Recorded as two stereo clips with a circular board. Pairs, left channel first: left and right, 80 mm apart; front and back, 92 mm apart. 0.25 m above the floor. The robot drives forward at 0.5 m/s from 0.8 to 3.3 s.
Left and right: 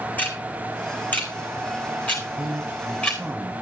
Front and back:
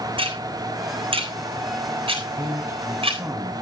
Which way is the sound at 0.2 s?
160° left.